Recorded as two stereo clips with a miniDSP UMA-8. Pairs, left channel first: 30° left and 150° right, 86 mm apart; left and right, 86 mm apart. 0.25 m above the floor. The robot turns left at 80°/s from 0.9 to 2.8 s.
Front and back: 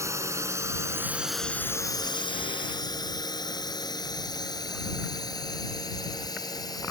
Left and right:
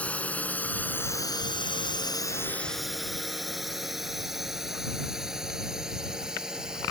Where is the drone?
160° left; by 6.9 s 10° right.